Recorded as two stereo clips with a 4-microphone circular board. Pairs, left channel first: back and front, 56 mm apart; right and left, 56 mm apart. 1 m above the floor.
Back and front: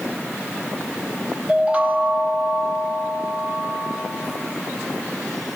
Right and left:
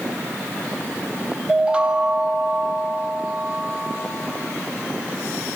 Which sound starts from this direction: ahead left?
A chime, at 1.5 s.